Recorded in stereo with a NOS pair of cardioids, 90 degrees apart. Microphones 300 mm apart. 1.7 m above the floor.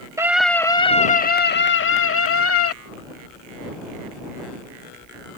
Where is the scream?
10° right; by 2.8 s 55° left.